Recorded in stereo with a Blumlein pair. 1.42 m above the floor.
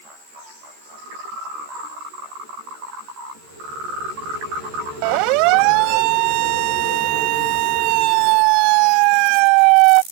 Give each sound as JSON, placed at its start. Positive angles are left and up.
{"t": 5.0, "sound": "a siren", "azimuth_deg": -45}